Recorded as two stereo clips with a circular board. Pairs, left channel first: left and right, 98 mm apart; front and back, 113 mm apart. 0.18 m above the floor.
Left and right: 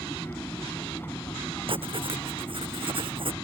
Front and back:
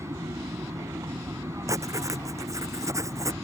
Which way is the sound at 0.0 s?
140° left.